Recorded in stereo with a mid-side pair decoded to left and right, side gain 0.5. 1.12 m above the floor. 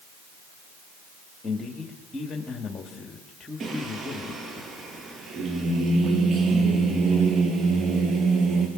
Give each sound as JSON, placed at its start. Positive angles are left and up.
{"t": 1.4, "sound": "a man speaking", "azimuth_deg": 40, "distance_m": 2.5}
{"t": 3.6, "sound": "singing", "azimuth_deg": -50, "distance_m": 5.5}